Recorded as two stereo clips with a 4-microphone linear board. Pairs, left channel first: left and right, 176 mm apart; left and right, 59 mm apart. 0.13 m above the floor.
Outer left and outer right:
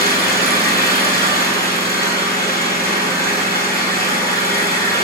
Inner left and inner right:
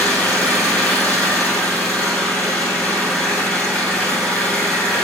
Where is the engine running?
20° left (ahead or behind), 2.5 m.